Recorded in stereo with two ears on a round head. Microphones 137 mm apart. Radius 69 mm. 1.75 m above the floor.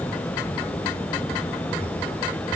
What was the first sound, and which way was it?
Only background noise.